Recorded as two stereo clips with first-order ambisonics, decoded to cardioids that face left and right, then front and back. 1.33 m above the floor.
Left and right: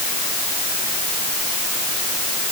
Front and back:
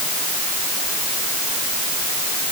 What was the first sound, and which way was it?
Only background noise.